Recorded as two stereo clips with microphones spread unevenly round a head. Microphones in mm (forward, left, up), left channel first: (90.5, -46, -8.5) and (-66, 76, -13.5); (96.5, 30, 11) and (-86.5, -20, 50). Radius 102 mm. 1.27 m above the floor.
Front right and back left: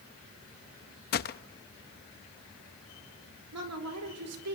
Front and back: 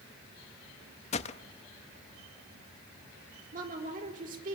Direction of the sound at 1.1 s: 45° right.